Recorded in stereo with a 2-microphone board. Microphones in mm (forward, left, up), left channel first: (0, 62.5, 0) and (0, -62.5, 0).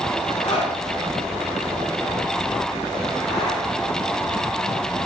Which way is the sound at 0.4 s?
50° left (ahead or behind).